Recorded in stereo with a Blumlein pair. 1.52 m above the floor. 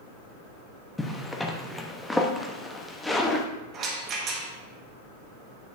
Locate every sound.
1.0 s a zipper: 5° left, 0.9 m
3.7 s a rattle: 30° right, 1.4 m